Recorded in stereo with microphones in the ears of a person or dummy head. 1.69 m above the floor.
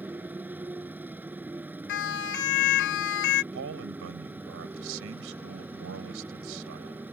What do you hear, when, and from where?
0.0 s a motorcycle: 10° right (ahead or behind)
1.9 s a siren: 60° left (ahead or behind)
3.5 s a man speaking: 65° right (ahead or behind)